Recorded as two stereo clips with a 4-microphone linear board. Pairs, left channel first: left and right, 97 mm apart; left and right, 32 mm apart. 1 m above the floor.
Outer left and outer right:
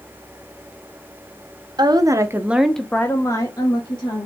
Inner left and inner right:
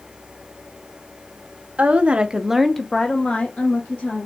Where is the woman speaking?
45° right (ahead or behind), 0.8 m; by 4.3 s 55° left (ahead or behind), 1.3 m.